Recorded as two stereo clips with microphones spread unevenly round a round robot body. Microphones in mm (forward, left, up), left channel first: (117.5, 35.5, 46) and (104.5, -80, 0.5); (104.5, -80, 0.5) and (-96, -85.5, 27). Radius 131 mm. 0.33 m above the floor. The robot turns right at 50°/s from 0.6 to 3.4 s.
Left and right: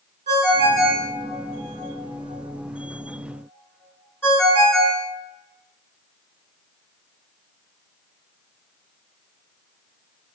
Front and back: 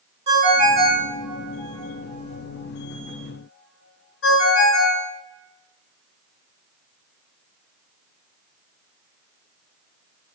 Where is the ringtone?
125° right, 2.5 m; by 5.1 s 15° left, 2.5 m.